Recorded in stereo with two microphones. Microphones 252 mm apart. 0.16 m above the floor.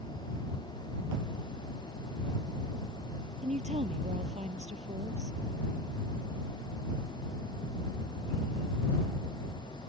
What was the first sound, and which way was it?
A woman speaking, 25° right (ahead or behind).